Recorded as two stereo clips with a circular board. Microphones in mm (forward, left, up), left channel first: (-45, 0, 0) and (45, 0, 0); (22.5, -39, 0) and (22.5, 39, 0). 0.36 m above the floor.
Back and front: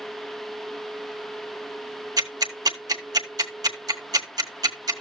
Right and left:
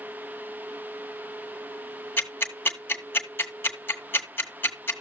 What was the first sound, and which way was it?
Ticking, 35° right.